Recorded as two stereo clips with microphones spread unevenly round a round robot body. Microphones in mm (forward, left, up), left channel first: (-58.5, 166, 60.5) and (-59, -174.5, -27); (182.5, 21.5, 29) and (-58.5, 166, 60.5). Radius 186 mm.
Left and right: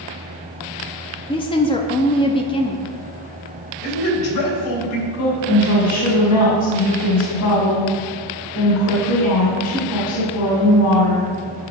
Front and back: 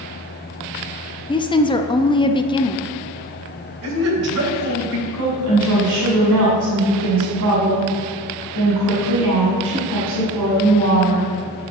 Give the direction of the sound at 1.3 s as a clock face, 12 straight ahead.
12 o'clock.